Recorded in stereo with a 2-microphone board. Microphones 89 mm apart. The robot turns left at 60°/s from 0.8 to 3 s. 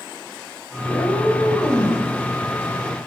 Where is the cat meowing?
80° left, 2.5 m; by 2.0 s 10° left, 2.5 m.